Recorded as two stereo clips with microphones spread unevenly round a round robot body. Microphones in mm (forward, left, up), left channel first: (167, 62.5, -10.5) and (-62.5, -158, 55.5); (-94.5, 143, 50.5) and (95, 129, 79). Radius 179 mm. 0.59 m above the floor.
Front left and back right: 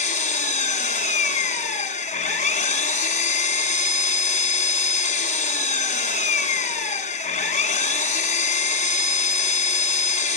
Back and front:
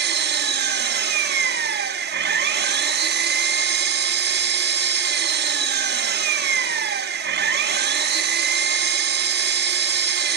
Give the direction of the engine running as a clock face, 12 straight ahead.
12 o'clock.